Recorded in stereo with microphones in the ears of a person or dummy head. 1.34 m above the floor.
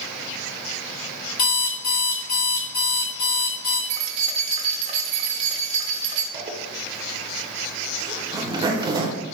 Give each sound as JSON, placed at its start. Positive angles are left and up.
{"t": 1.4, "sound": "an alarm clock", "side_deg": 75, "distance_m": 1.7}
{"t": 3.9, "sound": "keys jangling", "side_deg": -40, "distance_m": 0.6}
{"t": 6.3, "sound": "a zipper", "side_deg": -15, "distance_m": 0.6}